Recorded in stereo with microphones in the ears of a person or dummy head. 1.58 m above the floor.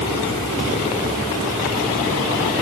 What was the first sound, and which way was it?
Only background noise.